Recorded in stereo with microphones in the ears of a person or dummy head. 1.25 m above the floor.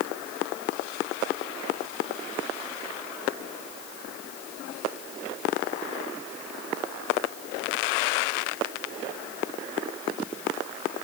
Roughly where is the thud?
No thud in this recording.